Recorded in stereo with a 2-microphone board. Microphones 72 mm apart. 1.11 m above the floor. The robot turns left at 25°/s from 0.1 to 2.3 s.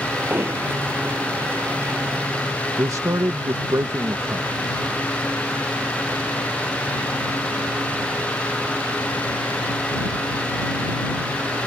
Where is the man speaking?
45° right (ahead or behind).